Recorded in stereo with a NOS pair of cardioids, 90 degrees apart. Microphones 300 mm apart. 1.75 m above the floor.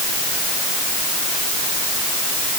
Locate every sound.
Only background noise.